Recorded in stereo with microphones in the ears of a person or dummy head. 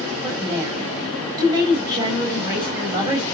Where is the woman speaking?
20° right (ahead or behind), 5.5 m.